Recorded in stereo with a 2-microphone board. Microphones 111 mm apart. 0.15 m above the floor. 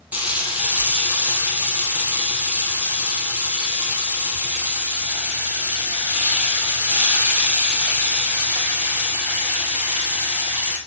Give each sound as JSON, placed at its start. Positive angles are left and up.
{"t": 0.1, "sound": "frying", "side_deg": -15, "distance_m": 2.0}